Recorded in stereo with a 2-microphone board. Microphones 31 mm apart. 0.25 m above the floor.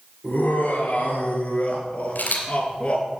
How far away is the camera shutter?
About 3 m.